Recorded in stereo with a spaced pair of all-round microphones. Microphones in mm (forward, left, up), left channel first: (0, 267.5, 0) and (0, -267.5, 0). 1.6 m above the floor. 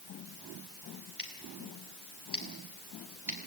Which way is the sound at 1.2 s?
75° left (ahead or behind).